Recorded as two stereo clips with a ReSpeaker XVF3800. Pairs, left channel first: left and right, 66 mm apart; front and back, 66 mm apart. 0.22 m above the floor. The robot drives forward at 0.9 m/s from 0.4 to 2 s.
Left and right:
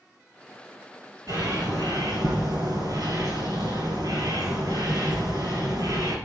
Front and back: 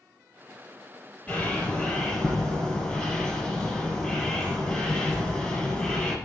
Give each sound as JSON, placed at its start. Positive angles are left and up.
{"t": 1.3, "sound": "a bird", "azimuth_deg": -75, "distance_m": 3.5}